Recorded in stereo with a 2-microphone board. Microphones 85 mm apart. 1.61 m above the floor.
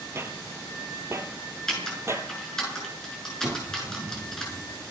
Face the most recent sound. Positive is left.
turn(degrees=-80)